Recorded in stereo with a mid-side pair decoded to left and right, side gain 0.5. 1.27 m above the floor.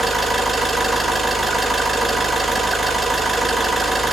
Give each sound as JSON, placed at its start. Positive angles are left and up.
{"t": 0.0, "sound": "an engine running", "azimuth_deg": -15, "distance_m": 5.0}